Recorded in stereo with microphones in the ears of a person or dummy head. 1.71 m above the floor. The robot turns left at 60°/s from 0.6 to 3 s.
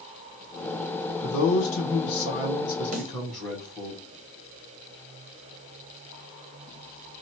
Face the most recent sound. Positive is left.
turn(degrees=-35)  # may be behind; listen again after turning